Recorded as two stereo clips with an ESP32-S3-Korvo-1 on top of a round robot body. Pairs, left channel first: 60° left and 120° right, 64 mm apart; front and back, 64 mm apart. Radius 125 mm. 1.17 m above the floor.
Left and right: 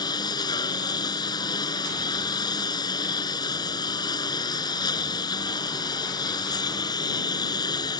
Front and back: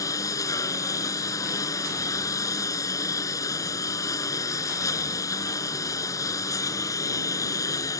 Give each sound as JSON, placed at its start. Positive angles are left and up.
{"t": 0.0, "sound": "a lawn mower", "azimuth_deg": 40}